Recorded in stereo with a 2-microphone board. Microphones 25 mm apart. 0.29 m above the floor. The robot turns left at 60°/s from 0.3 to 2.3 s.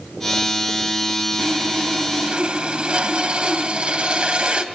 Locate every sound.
1.4 s sawing: 65° right, 1.5 m; by 4.6 s 120° right, 1.5 m